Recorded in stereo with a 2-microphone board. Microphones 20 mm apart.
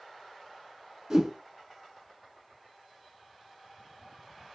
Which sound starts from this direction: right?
A whoosh, at 1.1 s.